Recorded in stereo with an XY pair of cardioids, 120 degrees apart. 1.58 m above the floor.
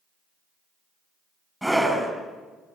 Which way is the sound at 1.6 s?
Straight ahead.